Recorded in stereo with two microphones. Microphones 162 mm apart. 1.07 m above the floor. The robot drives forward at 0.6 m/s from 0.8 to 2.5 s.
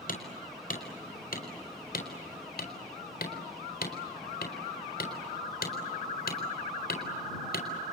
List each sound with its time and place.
0.1 s hammering: 60° left (ahead or behind), 4.5 m; by 7.7 s 75° left (ahead or behind), 4 m